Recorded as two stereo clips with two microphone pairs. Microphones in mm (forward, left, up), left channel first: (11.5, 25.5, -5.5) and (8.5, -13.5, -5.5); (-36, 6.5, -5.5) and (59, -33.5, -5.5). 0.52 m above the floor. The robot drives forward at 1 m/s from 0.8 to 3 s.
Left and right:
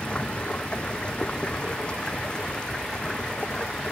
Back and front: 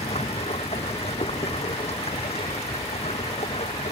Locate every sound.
0.0 s running water: 150° left; by 3.9 s 155° left